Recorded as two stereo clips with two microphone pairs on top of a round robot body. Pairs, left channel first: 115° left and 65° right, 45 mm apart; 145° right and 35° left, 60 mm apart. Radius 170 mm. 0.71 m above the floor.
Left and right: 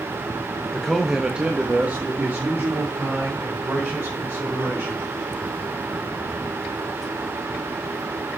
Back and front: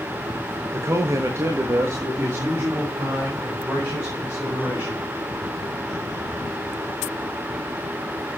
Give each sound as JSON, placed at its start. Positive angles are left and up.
{"t": 0.7, "sound": "a man speaking", "azimuth_deg": 45, "distance_m": 1.2}